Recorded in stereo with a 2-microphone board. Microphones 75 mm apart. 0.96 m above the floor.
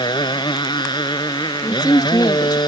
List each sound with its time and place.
0.0 s a motorcycle: 90° left; by 2.7 s 75° left (ahead or behind)
1.6 s a woman speaking: 60° left (ahead or behind)